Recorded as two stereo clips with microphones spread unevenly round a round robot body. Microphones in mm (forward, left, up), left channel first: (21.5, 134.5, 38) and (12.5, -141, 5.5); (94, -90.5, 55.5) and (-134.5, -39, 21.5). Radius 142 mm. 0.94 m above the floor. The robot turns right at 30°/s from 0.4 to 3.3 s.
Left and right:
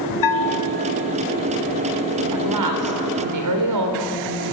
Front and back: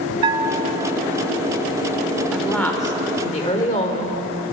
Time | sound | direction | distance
0.2 | a bell | 100° left | 1.1 m
2.3 | a woman speaking | 105° right | 4 m